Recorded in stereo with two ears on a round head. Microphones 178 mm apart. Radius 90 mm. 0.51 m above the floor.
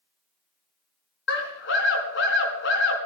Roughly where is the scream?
Left.